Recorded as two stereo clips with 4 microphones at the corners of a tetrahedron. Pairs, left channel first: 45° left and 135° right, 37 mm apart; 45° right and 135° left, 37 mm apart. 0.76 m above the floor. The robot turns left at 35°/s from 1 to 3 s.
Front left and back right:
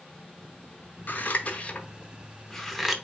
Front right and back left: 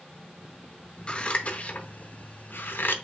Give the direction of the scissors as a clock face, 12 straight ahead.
11 o'clock.